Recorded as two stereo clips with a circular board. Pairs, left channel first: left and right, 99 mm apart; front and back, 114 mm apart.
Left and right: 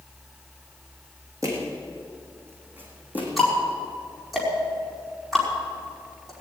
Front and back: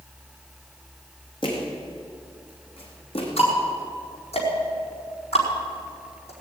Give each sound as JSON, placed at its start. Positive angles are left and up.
{"t": 1.4, "sound": "footsteps", "azimuth_deg": -35, "distance_m": 4.0}
{"t": 3.4, "sound": "ticking", "azimuth_deg": 0, "distance_m": 5.0}